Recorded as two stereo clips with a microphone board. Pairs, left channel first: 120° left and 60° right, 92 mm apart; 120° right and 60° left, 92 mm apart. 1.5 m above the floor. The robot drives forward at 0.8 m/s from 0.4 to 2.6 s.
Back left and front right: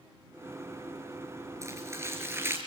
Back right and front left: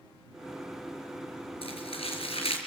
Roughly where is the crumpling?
Behind right.